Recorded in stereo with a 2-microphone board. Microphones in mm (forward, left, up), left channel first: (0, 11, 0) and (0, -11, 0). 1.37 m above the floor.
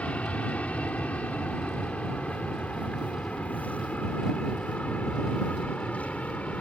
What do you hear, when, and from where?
0.0 s an aircraft: 70° left (ahead or behind)